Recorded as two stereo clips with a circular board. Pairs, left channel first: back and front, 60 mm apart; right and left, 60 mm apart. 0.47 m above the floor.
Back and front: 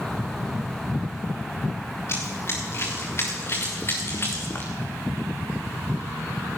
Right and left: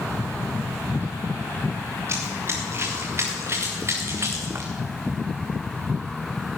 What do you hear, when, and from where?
2.1 s running footsteps: 135° left, 4.5 m; by 4.7 s 130° left, 2.5 m